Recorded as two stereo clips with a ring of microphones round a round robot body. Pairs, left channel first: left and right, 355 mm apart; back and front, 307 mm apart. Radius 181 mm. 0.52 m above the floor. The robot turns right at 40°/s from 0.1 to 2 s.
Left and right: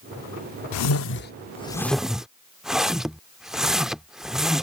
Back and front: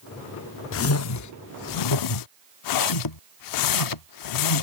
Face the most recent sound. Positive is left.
turn(degrees=180)